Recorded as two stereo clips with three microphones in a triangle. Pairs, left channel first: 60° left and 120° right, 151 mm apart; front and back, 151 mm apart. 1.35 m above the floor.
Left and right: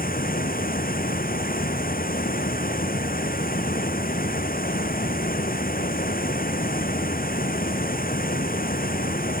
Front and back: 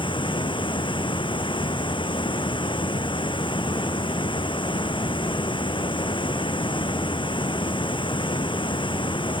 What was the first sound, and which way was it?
Running water, 55° left.